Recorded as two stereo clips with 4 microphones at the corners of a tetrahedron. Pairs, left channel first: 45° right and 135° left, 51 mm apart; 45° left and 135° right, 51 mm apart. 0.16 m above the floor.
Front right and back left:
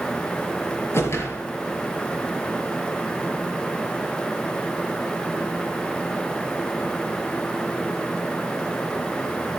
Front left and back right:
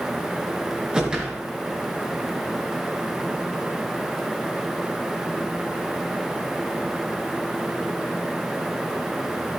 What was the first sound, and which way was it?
A whoosh, 65° right.